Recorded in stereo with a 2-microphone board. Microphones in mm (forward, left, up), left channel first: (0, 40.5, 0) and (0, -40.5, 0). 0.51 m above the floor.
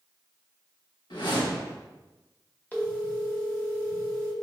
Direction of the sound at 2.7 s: 20° left (ahead or behind).